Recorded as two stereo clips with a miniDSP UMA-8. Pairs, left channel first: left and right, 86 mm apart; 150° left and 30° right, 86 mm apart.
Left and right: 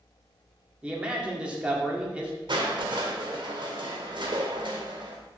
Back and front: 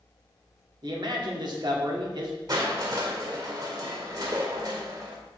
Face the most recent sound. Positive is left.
turn(degrees=-70)